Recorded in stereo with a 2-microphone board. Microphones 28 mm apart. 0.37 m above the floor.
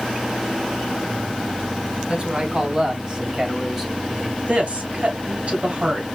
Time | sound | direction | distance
2.1 | a man speaking | 35° right (ahead or behind) | 2.5 m
4.5 | a woman speaking | 50° right (ahead or behind) | 3 m